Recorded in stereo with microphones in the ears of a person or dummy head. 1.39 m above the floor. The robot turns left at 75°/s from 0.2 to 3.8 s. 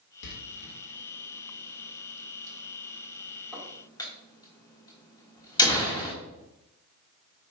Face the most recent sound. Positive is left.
turn(degrees=25)  # may be behind; listen again after turning